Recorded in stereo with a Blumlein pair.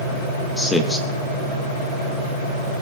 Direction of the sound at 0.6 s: 5° left.